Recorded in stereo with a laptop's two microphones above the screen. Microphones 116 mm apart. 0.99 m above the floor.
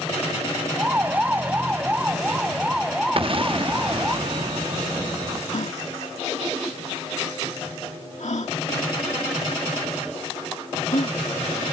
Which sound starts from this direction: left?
A gasp, at 5.5 s.